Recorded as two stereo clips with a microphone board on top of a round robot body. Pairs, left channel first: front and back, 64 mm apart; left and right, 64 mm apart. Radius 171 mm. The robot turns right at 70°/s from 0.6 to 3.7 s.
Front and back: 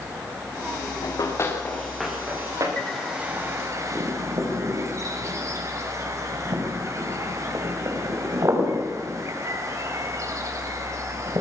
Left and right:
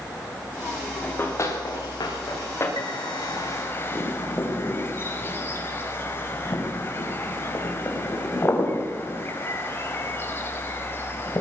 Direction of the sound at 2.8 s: 75° left.